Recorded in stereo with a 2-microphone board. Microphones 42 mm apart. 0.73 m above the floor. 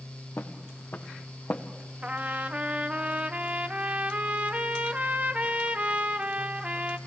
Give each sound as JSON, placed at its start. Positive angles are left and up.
{"t": 0.4, "sound": "footsteps", "side_deg": 55, "distance_m": 2.5}
{"t": 2.0, "sound": "a trumpet", "side_deg": -30, "distance_m": 0.9}